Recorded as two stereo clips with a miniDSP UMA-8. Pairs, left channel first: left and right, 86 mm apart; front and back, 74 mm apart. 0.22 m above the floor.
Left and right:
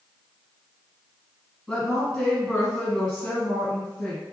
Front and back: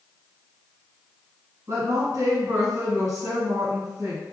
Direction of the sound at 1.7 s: Straight behind.